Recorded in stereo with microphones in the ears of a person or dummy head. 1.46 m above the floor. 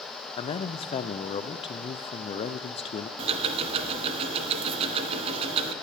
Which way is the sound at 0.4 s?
30° left (ahead or behind).